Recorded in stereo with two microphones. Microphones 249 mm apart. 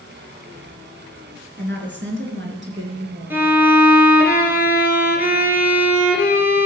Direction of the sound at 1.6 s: 45° right (ahead or behind).